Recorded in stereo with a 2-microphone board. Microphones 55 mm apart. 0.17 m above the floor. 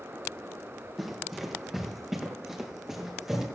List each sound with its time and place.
1.0 s running footsteps: 5° right (ahead or behind), 4.5 m; by 3.5 s 10° right (ahead or behind), 6.5 m